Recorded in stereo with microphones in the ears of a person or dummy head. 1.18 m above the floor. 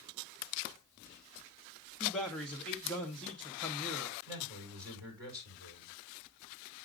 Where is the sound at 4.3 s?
15° right (ahead or behind), 5 m.